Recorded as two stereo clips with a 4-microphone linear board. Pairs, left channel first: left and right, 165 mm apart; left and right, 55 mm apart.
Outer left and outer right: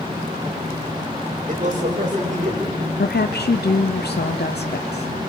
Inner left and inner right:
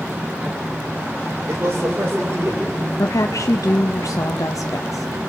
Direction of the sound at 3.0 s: 85° left.